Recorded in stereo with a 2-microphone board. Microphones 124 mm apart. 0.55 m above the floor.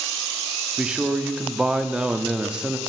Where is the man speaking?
10° right (ahead or behind), 0.6 m.